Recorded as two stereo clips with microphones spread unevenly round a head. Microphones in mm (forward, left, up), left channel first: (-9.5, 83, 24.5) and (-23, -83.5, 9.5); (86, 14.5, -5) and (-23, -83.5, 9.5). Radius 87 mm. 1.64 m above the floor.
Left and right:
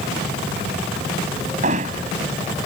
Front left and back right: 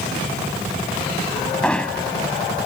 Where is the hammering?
40° right.